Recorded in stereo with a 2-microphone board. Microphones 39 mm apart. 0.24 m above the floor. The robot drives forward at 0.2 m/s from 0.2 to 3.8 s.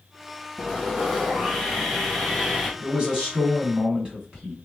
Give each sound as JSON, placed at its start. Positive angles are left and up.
{"t": 0.6, "sound": "sawing", "side_deg": -5, "distance_m": 1.6}
{"t": 2.8, "sound": "a man speaking", "side_deg": -30, "distance_m": 1.5}